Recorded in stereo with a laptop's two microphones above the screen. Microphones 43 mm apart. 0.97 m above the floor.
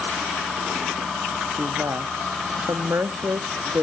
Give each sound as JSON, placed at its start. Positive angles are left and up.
{"t": 1.6, "sound": "a woman speaking", "side_deg": -80, "distance_m": 1.2}